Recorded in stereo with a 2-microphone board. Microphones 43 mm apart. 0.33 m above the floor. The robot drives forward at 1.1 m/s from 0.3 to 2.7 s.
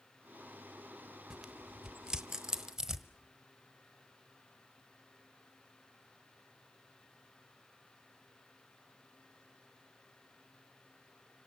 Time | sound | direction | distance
1.3 | tearing paper | 15° right (ahead or behind) | 1.0 m